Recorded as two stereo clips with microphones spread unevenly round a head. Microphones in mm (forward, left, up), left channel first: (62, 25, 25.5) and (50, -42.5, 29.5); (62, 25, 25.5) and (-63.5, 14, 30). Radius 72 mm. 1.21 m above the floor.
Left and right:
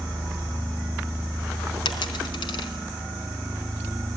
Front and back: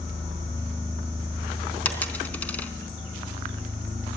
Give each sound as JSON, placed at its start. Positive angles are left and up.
{"t": 1.9, "sound": "a dropped coin", "azimuth_deg": 85, "distance_m": 3.5}